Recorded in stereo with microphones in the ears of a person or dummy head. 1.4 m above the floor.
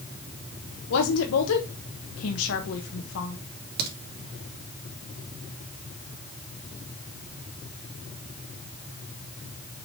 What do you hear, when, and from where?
0.9 s a woman speaking: 85° left, 1.2 m
3.8 s a crack: 55° right (ahead or behind), 2.5 m